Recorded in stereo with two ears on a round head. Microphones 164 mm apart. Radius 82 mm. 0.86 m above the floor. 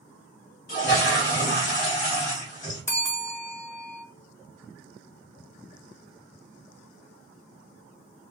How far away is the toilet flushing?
About 1.5 m.